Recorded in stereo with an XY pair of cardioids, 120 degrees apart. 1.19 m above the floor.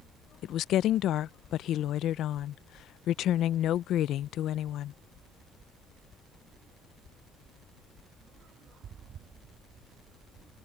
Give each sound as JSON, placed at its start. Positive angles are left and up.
{"t": 0.4, "sound": "a woman speaking", "azimuth_deg": 65}